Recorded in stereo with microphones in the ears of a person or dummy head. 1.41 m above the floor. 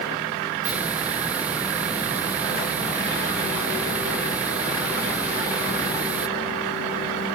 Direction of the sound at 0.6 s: 10° right (ahead or behind).